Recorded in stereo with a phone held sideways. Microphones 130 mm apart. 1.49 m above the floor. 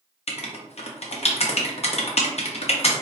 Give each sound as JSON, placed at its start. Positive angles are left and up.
{"t": 0.3, "sound": "writing", "side_deg": 50, "distance_m": 0.6}